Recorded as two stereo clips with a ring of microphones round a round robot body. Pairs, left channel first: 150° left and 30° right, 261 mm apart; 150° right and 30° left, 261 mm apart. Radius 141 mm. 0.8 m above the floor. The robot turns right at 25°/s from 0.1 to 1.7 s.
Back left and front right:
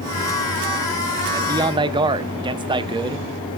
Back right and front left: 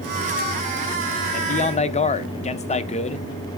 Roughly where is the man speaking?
Right.